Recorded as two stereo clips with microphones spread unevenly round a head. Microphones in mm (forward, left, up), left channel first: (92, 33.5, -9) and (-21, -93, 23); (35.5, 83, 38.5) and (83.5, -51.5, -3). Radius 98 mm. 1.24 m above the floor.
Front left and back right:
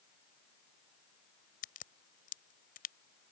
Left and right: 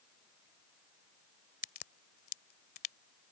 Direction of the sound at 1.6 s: 100° left.